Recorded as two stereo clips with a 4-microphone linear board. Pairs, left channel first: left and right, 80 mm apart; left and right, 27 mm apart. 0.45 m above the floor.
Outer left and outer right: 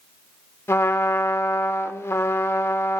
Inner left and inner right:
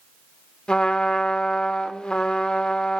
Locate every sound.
0.7 s a trumpet: 35° left (ahead or behind), 0.6 m